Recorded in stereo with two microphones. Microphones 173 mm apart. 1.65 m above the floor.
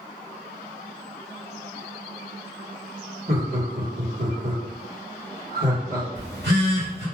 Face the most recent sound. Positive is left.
turn(degrees=-90)